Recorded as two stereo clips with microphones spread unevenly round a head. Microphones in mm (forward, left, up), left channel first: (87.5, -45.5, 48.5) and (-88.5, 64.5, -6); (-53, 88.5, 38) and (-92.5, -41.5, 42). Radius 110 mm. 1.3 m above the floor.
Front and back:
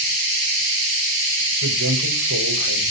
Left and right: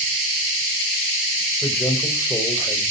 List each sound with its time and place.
1.6 s a man speaking: 155° left, 5 m; by 2.8 s 135° left, 5.5 m